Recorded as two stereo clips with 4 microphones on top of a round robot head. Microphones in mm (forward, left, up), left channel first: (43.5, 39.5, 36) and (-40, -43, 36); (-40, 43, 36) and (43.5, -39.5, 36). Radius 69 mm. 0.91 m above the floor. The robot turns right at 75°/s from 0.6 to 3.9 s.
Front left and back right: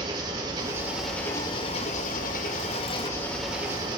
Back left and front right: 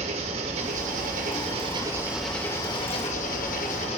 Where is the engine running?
75° right, 2 m; by 4.0 s 170° left, 2 m.